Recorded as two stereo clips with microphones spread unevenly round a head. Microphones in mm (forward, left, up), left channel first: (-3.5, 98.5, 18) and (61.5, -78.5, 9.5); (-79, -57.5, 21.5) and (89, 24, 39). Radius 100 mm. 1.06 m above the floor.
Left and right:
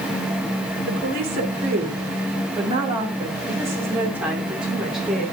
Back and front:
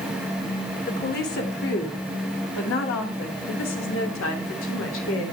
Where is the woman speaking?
115° right, 2.5 m; by 5.2 s 160° right, 3 m.